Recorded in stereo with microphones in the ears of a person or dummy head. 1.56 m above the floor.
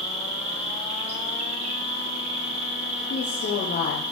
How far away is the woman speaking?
About 0.8 m.